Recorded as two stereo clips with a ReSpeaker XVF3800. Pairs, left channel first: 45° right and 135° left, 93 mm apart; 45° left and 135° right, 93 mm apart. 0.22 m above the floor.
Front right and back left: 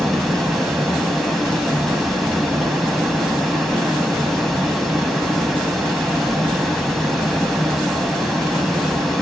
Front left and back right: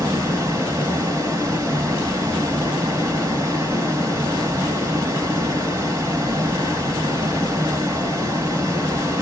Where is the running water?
135° right, 1.1 m.